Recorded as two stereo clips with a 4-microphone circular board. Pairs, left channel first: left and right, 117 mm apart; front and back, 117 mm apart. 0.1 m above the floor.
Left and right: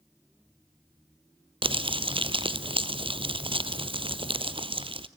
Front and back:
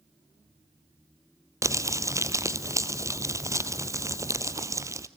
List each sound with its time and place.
1.6 s crumpling: 120° right, 0.9 m